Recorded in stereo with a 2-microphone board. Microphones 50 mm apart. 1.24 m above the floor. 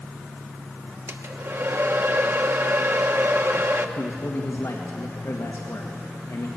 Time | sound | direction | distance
1.1 | a hair dryer | 55° right (ahead or behind) | 1.0 m
4.0 | a man speaking | 65° left (ahead or behind) | 1.7 m